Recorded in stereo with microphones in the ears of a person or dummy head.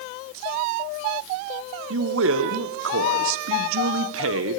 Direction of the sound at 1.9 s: 85° right.